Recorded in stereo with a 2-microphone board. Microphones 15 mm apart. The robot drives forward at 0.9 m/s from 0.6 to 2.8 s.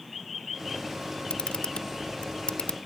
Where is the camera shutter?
80° left; by 2.8 s 75° left (ahead or behind).